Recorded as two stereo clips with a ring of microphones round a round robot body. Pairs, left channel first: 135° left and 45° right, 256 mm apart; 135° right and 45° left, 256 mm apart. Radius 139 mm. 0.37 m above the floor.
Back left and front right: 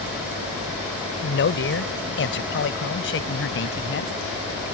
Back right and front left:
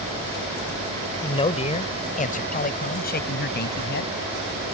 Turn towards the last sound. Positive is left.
turn(degrees=175)